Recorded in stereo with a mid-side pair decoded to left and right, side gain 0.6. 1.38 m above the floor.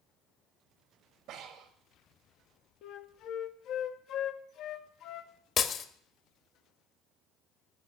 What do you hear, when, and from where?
1.3 s breathing: 65° right, 1.9 m
2.8 s a flute: 60° left, 1.1 m
5.6 s breaking glass: 45° left, 1.5 m